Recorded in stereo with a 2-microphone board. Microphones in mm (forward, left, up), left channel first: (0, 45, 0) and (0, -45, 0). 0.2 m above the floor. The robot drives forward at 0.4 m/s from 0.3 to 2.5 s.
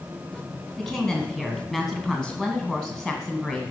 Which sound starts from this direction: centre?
A woman speaking, at 0.8 s.